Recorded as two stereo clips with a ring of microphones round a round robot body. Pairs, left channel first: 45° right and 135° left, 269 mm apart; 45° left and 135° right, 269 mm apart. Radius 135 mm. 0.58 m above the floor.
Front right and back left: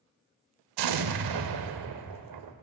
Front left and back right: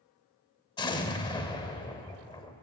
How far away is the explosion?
About 0.7 m.